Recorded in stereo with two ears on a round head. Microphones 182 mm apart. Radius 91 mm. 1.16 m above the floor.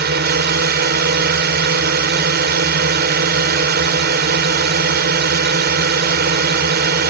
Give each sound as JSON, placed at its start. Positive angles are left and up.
{"t": 0.0, "sound": "a drone", "side_deg": -55}